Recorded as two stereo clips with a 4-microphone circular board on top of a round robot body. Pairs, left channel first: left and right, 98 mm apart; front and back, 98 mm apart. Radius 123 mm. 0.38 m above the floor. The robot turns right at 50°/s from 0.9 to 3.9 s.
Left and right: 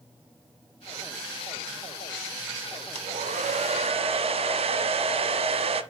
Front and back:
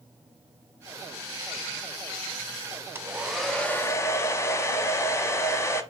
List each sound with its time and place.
3.0 s a hair dryer: 110° right, 0.9 m; by 5.8 s 65° right, 0.9 m